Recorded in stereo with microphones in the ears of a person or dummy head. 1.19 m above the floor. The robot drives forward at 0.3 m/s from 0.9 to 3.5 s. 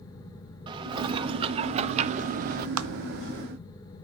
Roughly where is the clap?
Right.